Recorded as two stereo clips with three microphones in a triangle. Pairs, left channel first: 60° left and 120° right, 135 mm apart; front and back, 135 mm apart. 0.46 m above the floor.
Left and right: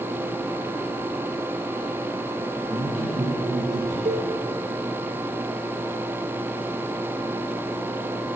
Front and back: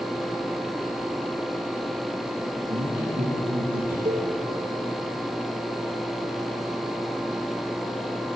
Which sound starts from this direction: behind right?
A cowbell, at 4.0 s.